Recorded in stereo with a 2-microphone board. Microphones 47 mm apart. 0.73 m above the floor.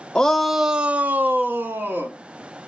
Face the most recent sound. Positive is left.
turn(degrees=-50)  # may be behind; listen again after turning